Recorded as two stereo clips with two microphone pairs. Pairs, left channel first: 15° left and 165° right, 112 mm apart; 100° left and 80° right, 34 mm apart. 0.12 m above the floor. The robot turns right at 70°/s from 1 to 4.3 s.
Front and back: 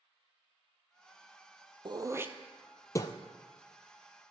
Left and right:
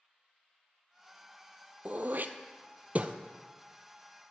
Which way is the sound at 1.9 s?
125° right.